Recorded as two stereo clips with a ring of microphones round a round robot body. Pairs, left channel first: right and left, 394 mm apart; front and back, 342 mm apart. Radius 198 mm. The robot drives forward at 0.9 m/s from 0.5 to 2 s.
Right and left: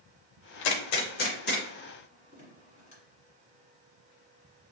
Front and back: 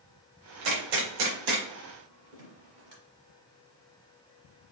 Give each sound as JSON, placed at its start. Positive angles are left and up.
{"t": 0.6, "sound": "a gunshot", "azimuth_deg": -125, "distance_m": 0.6}